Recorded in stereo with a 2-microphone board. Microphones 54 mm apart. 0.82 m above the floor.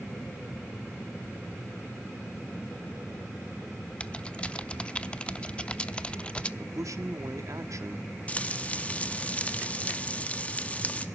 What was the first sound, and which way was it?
Typing on a keyboard, 20° left (ahead or behind).